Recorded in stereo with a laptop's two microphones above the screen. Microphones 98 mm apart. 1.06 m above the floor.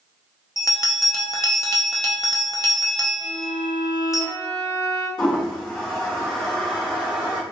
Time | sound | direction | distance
0.6 | a bell | 35° left (ahead or behind) | 0.6 m
3.2 | a violin | 45° left (ahead or behind) | 1.9 m
5.2 | a toilet flushing | 50° left (ahead or behind) | 1.3 m